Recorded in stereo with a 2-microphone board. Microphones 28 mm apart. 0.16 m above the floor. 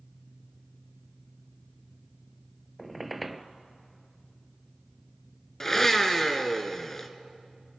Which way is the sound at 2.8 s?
Centre (ahead or behind).